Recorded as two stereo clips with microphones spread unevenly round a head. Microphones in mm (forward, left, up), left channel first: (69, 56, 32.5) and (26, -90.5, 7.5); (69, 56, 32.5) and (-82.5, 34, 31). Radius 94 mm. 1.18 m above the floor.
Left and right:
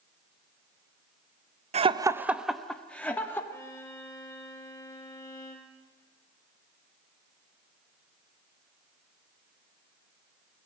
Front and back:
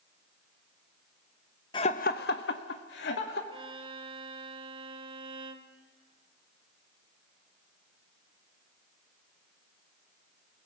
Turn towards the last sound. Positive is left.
turn(degrees=140)